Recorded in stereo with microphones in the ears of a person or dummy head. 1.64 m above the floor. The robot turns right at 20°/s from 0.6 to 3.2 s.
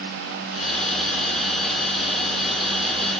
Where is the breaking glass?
No breaking glass in this recording.